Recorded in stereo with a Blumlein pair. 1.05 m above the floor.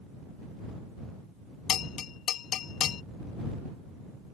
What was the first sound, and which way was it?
A bell, 30° left.